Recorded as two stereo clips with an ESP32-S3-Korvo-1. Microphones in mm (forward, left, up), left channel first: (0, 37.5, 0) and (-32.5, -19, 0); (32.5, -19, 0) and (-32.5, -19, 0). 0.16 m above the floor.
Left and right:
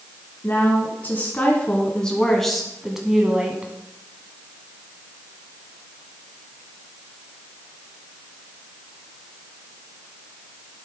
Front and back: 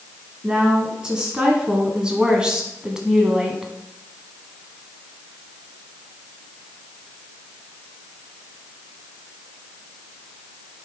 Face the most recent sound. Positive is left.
turn(degrees=-115)